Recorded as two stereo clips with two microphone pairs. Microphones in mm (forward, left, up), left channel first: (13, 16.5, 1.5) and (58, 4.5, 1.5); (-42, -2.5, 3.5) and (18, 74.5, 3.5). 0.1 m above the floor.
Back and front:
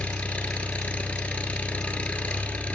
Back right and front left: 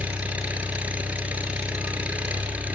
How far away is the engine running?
About 1.4 m.